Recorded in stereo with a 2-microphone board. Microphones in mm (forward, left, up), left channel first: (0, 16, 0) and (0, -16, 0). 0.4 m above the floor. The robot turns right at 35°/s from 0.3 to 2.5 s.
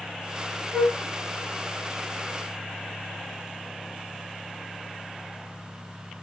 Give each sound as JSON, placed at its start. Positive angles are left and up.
{"t": 0.7, "sound": "a flute", "side_deg": 10, "distance_m": 1.4}